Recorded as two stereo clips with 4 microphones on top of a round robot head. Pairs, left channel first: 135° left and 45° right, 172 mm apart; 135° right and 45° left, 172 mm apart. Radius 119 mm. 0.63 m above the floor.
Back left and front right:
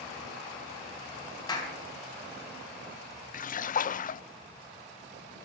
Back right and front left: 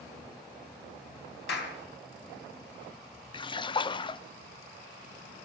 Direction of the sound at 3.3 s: 165° left.